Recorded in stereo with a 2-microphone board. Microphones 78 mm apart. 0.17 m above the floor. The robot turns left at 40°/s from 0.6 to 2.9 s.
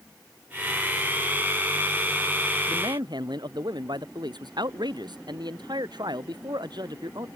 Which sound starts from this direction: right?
A man speaking, at 2.7 s.